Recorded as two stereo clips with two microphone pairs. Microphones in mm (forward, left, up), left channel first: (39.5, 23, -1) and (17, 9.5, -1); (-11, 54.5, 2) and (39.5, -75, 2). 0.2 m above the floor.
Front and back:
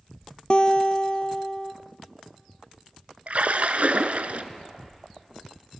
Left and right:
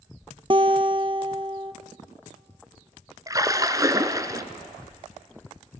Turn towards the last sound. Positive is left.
turn(degrees=-130)